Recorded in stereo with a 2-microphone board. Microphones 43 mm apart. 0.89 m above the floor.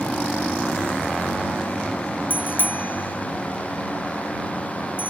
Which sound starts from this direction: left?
A bicycle bell, at 2.3 s.